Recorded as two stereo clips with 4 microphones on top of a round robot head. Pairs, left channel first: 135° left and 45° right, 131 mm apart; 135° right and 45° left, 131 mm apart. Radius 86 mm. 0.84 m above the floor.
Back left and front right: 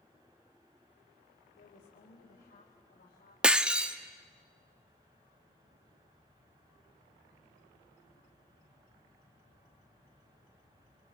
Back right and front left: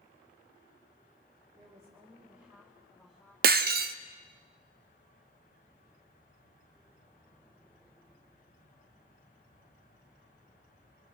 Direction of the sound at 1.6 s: 105° left.